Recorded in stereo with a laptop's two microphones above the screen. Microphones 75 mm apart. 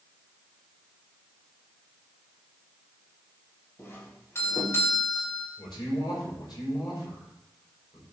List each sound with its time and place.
3.8 s a doorbell: 35° left (ahead or behind), 2.5 m
5.6 s a man speaking: 80° left, 5 m